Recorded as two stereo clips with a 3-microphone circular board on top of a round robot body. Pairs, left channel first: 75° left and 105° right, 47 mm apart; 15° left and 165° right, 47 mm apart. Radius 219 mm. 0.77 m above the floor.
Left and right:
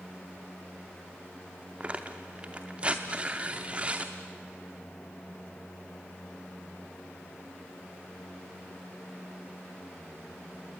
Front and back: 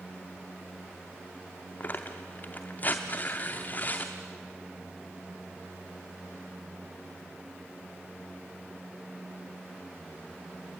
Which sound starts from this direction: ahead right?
Tearing paper, at 1.8 s.